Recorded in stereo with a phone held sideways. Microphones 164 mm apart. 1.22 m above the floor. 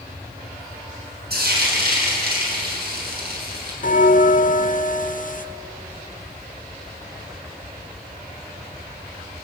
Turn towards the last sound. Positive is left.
turn(degrees=55)  # may be behind; listen again after turning